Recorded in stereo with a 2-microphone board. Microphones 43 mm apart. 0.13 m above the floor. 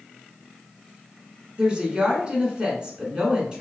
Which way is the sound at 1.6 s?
25° right (ahead or behind).